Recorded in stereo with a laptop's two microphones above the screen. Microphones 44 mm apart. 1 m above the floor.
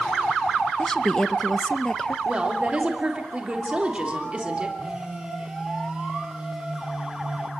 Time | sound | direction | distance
0.8 | a woman speaking | 15° left (ahead or behind) | 0.8 m
2.2 | a woman speaking | 25° right (ahead or behind) | 3 m
4.8 | a phone buzzing | 10° right (ahead or behind) | 3 m